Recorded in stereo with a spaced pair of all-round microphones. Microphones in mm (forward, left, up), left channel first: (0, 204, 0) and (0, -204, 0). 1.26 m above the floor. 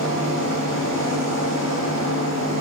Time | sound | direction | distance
0.0 | a machine running | 50° right (ahead or behind) | 3 m